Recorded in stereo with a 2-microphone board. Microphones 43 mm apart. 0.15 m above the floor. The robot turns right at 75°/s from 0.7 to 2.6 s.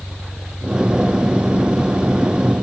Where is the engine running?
40° right; by 2.6 s 100° left.